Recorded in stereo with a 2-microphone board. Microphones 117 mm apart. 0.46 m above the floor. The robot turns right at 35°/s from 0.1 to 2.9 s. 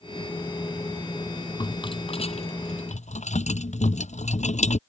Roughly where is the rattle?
Left.